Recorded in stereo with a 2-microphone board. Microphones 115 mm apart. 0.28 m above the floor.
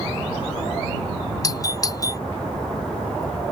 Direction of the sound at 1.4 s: 35° left (ahead or behind).